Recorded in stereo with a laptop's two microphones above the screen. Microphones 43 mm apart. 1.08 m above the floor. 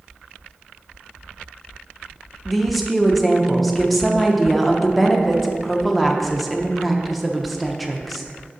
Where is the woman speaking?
Centre (ahead or behind), 0.7 m.